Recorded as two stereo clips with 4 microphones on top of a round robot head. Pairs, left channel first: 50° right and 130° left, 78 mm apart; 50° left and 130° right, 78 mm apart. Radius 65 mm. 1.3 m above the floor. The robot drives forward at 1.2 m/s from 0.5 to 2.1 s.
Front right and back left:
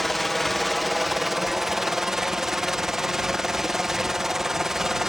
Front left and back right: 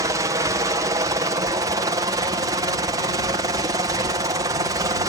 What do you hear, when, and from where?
0.0 s a helicopter: 135° right; by 5.1 s 145° right